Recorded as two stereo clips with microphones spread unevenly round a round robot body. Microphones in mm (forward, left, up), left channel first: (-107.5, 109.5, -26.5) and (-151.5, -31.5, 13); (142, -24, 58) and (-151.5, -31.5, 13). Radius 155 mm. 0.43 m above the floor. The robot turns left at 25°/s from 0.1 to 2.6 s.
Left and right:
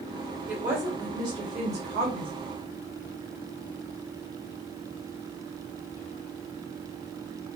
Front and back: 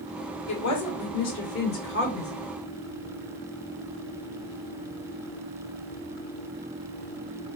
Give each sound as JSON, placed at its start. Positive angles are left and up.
{"t": 0.5, "sound": "a woman speaking", "azimuth_deg": -10, "distance_m": 1.5}